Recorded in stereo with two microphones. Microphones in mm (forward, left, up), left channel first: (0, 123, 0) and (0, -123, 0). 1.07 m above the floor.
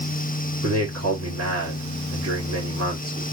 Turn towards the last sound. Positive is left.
turn(degrees=-70)  # may be behind; listen again after turning